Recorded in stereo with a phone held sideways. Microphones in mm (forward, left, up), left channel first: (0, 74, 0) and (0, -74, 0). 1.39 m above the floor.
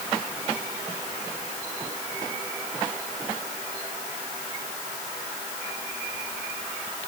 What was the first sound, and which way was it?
Only background noise.